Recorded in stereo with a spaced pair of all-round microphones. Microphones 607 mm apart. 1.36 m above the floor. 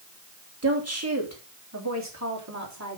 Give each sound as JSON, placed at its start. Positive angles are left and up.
{"t": 0.6, "sound": "a woman speaking", "side_deg": -25, "distance_m": 2.5}